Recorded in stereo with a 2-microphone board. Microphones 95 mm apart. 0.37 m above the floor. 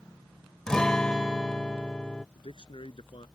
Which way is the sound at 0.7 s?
10° left (ahead or behind).